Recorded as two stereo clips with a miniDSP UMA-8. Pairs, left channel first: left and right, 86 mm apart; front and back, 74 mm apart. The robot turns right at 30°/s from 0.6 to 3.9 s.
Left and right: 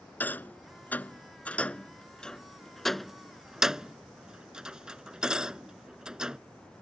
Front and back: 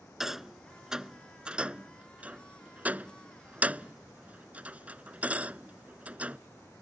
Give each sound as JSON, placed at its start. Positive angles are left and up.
{"t": 0.2, "sound": "a rattle", "azimuth_deg": 105}